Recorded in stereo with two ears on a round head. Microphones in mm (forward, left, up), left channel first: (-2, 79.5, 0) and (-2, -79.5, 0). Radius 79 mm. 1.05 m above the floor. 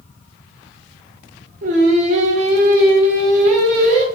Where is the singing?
45° right (ahead or behind), 0.6 m.